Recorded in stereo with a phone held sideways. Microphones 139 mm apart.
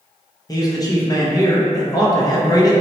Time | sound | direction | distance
0.5 | a man speaking | 25° left (ahead or behind) | 0.5 m